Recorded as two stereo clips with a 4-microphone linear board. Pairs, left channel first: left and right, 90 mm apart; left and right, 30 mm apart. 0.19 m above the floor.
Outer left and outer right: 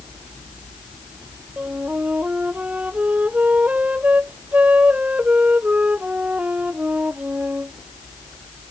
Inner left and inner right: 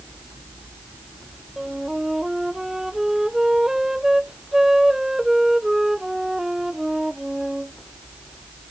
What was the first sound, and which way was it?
A flute, 15° right (ahead or behind).